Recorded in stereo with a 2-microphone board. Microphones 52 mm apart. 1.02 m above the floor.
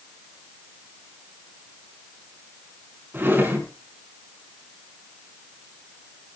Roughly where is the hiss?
No hiss in this recording.